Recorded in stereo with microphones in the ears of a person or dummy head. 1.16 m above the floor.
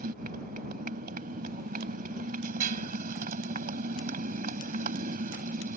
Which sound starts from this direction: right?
A motorcycle, at 0.0 s.